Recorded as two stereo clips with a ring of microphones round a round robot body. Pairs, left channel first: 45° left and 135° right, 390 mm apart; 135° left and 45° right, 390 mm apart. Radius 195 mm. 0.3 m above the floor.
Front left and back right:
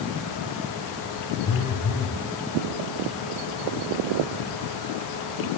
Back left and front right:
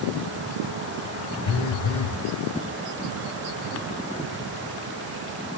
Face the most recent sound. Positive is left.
turn(degrees=105)